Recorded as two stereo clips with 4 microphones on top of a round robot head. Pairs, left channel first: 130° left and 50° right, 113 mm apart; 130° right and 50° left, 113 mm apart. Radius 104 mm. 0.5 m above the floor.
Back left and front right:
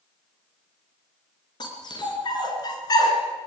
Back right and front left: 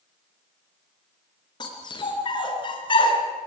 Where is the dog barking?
Straight behind, 4.5 m; by 3.2 s 175° right, 3.5 m.